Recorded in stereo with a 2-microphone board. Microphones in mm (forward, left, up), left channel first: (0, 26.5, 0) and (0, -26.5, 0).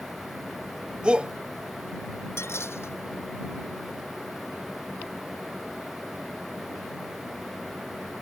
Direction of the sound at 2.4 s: 50° left (ahead or behind).